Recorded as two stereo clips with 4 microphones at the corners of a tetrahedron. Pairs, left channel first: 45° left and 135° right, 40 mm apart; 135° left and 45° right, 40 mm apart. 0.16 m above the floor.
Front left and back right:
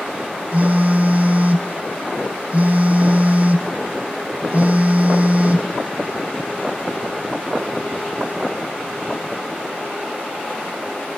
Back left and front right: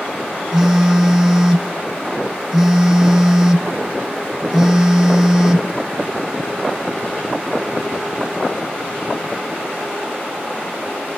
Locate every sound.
0.5 s a phone buzzing: 125° right, 0.5 m